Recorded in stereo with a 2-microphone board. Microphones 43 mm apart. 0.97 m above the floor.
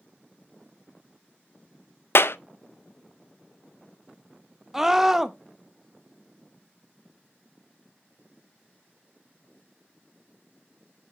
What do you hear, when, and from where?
2.1 s a clap: 65° left (ahead or behind), 0.5 m
4.7 s a scream: 10° right (ahead or behind), 0.8 m